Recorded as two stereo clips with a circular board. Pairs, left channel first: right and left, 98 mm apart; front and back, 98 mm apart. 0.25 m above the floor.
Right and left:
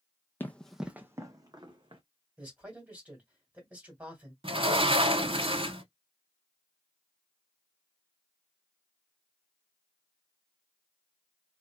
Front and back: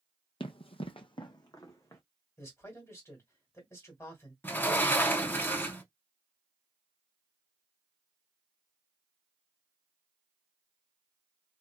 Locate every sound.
0.4 s running footsteps: 20° right, 0.5 m; by 2.0 s 60° left, 1.0 m
2.4 s a man speaking: 25° left, 1.8 m
4.4 s a sliding door: 70° left, 0.6 m